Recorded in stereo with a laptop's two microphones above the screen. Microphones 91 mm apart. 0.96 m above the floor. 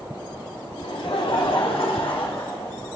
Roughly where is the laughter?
Left.